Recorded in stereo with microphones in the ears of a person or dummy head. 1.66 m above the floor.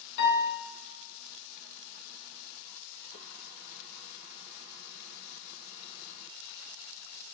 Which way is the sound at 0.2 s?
65° left (ahead or behind).